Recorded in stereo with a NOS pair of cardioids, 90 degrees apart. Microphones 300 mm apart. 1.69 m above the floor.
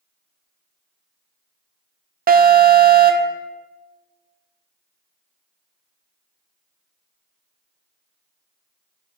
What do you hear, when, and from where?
2.3 s an alarm: 30° right, 0.6 m